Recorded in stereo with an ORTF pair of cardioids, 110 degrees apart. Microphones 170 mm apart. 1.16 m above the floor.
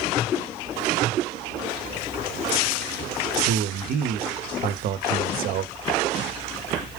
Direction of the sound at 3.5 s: 60° right.